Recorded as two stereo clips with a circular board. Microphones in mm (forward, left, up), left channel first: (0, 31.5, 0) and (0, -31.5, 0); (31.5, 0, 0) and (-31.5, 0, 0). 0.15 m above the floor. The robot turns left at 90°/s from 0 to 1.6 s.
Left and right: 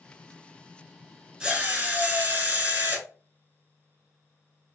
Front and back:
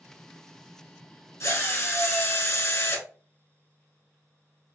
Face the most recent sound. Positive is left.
turn(degrees=-35)